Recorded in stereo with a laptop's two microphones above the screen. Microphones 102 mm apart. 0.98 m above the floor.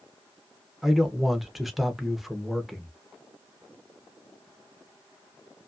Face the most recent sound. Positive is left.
turn(degrees=0)  # may be behind; listen again after turning